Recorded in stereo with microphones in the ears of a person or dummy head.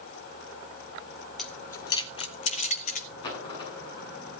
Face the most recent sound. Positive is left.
turn(degrees=25)  # may be behind; listen again after turning